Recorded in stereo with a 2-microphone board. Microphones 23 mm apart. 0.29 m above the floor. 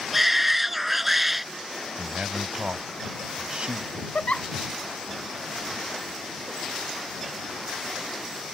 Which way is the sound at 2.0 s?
45° right (ahead or behind).